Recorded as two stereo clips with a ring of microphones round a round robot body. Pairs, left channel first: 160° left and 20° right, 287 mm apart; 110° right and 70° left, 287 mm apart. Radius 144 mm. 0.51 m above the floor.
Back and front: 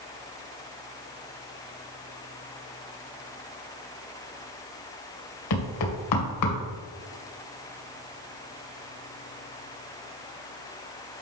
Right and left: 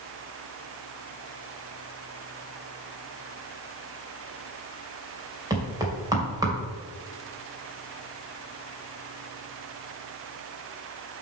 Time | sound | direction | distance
5.5 | knocking | 145° left | 2.5 m